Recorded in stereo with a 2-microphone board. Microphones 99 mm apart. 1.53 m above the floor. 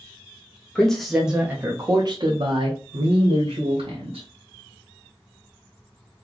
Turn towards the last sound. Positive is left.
turn(degrees=-85)